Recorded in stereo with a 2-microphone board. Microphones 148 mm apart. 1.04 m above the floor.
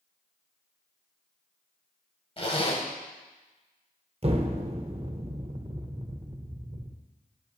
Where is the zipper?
40° left (ahead or behind), 1.4 m.